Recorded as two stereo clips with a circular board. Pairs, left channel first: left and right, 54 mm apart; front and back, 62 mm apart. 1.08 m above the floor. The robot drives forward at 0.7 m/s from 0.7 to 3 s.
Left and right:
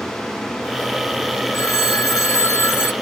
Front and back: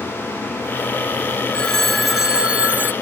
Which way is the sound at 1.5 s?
75° left.